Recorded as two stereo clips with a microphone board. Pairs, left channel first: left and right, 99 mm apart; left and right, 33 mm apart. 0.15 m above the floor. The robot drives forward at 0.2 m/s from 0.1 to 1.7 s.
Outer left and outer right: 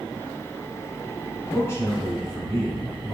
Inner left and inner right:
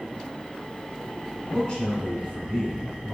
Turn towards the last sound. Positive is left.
turn(degrees=25)  # may be behind; listen again after turning